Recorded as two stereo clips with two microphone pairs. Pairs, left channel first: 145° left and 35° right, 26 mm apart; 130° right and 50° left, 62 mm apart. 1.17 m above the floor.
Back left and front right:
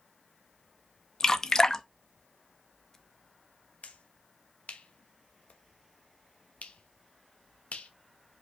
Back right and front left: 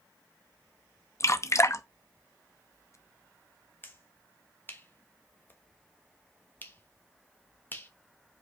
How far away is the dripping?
About 0.6 m.